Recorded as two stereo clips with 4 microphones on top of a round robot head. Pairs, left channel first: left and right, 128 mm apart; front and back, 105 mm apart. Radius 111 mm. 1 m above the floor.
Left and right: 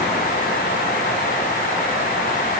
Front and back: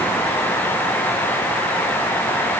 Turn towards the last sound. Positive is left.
No sound to turn to.